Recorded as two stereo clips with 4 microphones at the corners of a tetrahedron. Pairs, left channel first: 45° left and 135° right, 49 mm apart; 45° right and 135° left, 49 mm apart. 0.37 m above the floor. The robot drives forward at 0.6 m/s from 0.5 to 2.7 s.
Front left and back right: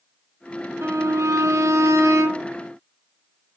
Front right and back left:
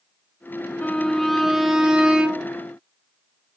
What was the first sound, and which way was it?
A violin, 105° right.